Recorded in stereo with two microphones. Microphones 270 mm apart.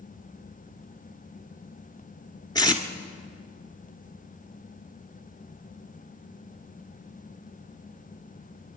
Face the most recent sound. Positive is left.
turn(degrees=15)  # may be behind; listen again after turning